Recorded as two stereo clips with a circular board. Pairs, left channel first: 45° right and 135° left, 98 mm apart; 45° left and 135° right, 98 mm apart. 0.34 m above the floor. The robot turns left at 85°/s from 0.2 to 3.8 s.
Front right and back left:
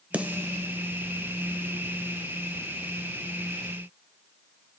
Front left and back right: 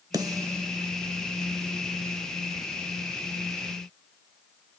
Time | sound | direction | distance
0.1 | a snare drum | 155° right | 0.8 m